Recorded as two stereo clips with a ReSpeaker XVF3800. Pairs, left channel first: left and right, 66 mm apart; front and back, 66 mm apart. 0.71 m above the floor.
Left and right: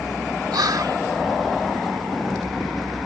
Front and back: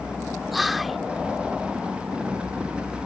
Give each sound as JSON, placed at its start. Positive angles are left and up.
{"t": 0.5, "sound": "whispering", "azimuth_deg": -90}